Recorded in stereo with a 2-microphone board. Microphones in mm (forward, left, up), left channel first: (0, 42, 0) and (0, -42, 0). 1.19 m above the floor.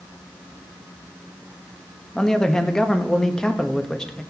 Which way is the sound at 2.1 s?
10° left (ahead or behind).